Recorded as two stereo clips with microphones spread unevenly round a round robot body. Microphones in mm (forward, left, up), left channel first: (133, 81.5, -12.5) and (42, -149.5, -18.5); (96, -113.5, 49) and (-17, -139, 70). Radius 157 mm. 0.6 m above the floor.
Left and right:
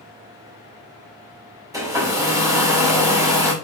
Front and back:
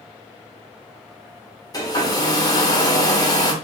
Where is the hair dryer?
35° right, 2 m.